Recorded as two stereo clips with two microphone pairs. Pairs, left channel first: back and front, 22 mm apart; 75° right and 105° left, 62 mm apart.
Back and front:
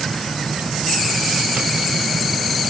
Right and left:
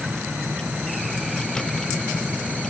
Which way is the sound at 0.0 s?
Straight ahead.